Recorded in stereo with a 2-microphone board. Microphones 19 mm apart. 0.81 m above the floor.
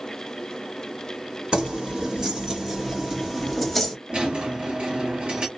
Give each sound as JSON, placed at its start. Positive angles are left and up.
{"t": 1.5, "sound": "keys jangling", "side_deg": -50, "distance_m": 1.7}
{"t": 4.1, "sound": "a squeak", "side_deg": -60, "distance_m": 1.3}